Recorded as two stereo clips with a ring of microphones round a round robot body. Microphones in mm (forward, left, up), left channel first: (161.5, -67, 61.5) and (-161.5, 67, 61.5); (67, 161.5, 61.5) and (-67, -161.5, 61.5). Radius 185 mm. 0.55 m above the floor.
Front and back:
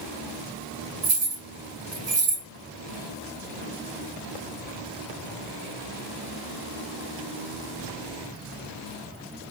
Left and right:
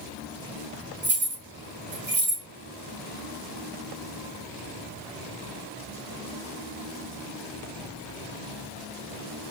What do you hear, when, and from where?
1.0 s keys jangling: 175° right, 3 m